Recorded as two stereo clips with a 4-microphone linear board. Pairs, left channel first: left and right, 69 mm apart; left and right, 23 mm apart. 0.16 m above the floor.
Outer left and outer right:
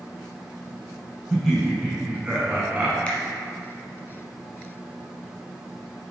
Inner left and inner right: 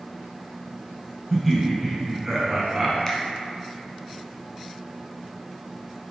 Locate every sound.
1.3 s laughter: 5° right (ahead or behind), 1.9 m; by 3.0 s 20° right (ahead or behind), 1.6 m
3.1 s a finger snap: 15° left (ahead or behind), 1.1 m